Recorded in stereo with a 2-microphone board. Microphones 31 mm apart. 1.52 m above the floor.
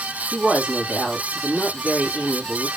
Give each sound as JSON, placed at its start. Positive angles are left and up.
{"t": 0.3, "sound": "a woman speaking", "side_deg": -35, "distance_m": 2.5}